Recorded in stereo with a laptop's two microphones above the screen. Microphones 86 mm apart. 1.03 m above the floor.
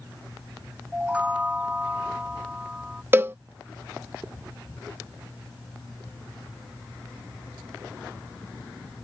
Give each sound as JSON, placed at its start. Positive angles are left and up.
{"t": 0.9, "sound": "a chime", "side_deg": -15}
{"t": 3.1, "sound": "a cowbell", "side_deg": -25}